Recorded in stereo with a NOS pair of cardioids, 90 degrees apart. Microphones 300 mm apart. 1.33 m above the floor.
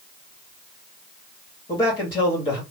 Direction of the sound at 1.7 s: 15° left.